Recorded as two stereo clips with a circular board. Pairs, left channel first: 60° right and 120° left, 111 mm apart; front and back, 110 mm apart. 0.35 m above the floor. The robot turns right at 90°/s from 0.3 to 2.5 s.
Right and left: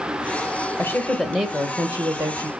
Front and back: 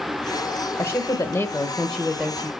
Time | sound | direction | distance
0.8 | a woman speaking | 25° right | 1.0 m